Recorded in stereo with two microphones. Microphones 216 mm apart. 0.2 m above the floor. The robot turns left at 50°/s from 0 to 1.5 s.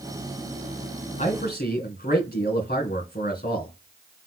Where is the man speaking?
35° left (ahead or behind), 2 m; by 3.7 s 45° left (ahead or behind), 2 m.